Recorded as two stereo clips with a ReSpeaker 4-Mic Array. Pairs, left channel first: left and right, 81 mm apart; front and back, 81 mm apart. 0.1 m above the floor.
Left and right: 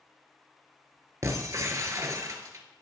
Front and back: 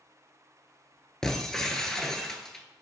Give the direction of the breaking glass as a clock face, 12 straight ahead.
3 o'clock.